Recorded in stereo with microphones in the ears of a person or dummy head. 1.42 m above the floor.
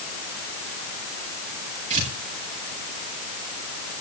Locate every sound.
1.9 s tearing paper: 35° right (ahead or behind), 8.5 m